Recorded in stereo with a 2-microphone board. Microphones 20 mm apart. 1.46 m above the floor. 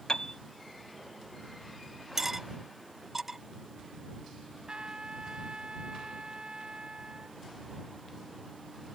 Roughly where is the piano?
Left.